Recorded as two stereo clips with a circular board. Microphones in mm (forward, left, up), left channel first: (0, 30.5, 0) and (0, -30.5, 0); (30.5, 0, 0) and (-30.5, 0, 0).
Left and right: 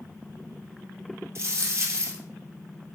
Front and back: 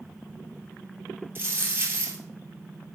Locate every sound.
1.4 s a dropped coin: 125° right, 1.6 m